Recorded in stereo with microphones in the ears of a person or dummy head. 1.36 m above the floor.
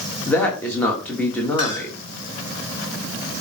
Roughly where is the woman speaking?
Centre.